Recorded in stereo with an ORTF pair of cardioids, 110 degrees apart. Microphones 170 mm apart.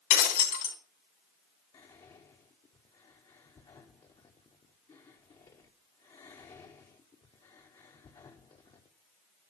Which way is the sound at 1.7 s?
25° left.